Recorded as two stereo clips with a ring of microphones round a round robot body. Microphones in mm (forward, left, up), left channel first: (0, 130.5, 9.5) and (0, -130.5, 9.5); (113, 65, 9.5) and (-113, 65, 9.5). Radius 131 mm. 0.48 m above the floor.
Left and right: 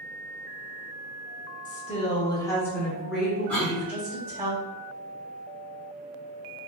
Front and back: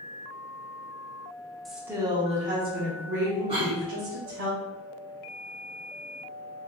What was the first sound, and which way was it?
A woman speaking, 85° left.